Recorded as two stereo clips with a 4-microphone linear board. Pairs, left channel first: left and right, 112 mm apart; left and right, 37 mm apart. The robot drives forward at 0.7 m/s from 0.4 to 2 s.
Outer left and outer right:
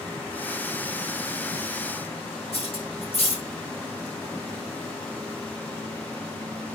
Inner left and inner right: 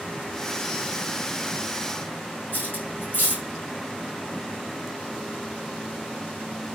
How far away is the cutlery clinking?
About 5 m.